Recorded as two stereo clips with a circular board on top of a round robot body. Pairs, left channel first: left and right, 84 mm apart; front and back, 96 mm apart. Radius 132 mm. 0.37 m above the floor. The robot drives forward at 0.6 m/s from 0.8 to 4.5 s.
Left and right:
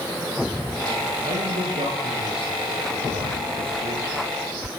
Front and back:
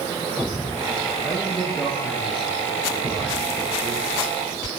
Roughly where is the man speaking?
Right.